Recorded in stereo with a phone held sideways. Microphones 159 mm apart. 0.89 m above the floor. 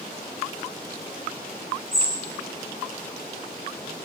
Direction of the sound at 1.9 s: 35° right (ahead or behind).